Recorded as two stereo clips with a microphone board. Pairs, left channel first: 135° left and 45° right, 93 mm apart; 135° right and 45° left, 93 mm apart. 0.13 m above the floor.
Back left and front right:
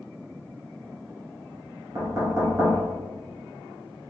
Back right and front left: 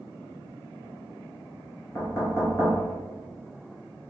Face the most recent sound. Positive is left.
turn(degrees=-85)